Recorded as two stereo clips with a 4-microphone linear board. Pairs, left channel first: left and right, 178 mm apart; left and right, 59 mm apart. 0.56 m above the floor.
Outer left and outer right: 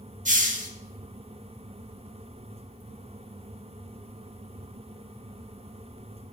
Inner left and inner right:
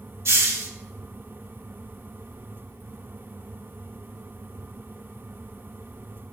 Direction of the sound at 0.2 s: 50° right (ahead or behind).